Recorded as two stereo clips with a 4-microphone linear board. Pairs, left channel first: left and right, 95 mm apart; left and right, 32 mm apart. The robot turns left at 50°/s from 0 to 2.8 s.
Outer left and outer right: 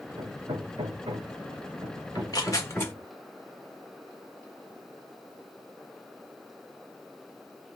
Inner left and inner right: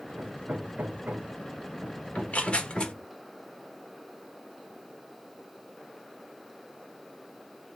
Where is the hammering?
45° right (ahead or behind), 1.8 m; by 3.1 s centre (ahead or behind), 1.8 m.